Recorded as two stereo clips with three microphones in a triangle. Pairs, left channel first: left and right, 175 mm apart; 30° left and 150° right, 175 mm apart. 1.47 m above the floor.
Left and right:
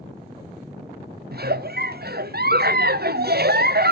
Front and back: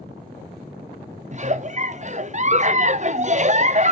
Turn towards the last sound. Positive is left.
turn(degrees=-105)